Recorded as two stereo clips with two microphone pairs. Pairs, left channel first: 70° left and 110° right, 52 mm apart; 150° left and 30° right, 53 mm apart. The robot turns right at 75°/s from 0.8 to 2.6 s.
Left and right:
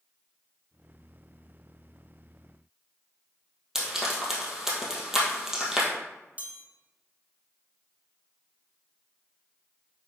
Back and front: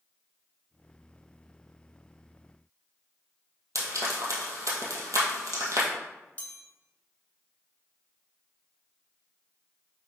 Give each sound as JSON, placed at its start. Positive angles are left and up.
{"t": 3.8, "sound": "frying", "azimuth_deg": -30, "distance_m": 2.0}
{"t": 6.4, "sound": "a chime", "azimuth_deg": -160, "distance_m": 1.4}